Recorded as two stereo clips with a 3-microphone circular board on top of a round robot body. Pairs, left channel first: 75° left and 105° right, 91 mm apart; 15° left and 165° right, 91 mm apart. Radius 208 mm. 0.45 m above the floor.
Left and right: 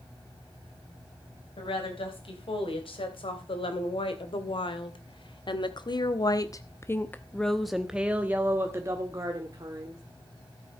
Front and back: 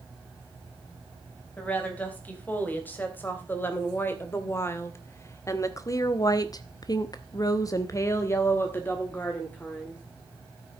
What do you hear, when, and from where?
1.6 s a woman speaking: 85° left, 4.5 m; by 10.0 s 60° right, 2.5 m